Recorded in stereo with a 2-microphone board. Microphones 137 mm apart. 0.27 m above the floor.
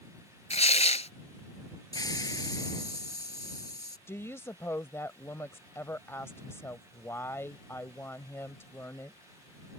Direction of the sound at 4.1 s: 20° left (ahead or behind).